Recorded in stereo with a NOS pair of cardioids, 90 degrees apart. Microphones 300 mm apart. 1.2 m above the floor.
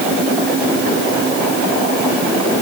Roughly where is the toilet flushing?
I don't hear a toilet flushing.